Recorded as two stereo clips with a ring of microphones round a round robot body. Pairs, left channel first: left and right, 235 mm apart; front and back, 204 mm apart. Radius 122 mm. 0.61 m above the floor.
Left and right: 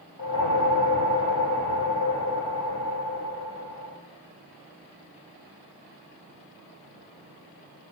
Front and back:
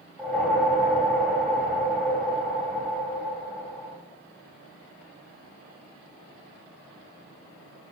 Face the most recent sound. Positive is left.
turn(degrees=85)